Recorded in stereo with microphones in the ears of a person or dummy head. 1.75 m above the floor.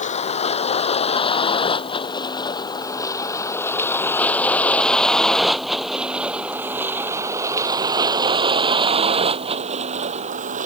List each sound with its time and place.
0.0 s a vehicle: 35° left (ahead or behind); by 10.7 s 45° right (ahead or behind)